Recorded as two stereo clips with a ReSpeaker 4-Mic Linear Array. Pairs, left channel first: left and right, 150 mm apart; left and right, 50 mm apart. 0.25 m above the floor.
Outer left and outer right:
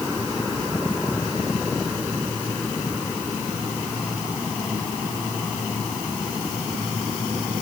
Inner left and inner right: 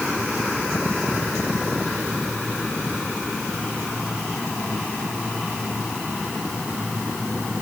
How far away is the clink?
No clink in this recording.